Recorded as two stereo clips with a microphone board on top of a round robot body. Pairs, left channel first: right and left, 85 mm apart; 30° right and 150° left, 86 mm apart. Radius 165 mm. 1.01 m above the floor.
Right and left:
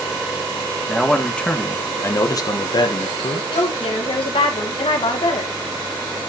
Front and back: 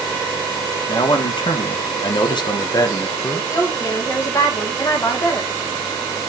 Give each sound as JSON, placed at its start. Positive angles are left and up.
{"t": 0.9, "sound": "a man speaking", "azimuth_deg": 0, "distance_m": 1.9}
{"t": 3.5, "sound": "a woman speaking", "azimuth_deg": -85, "distance_m": 2.5}